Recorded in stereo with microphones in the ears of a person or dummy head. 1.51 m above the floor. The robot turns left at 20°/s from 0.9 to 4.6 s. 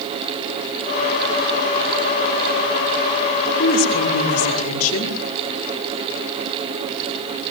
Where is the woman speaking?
70° left (ahead or behind), 4 m; by 5.2 s 85° left, 4 m.